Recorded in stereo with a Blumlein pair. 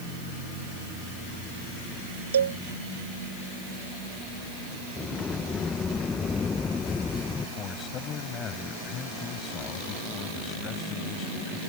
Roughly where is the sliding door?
Ahead.